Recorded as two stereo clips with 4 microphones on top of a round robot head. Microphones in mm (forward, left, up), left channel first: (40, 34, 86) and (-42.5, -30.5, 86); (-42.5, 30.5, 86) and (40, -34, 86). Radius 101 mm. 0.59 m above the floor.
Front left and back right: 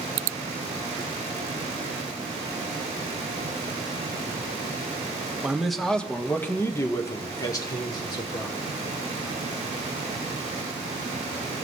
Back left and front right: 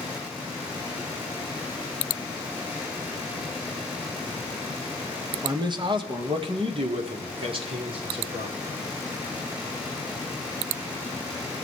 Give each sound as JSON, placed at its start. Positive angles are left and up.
{"t": 5.4, "sound": "a man speaking", "azimuth_deg": -65, "distance_m": 1.1}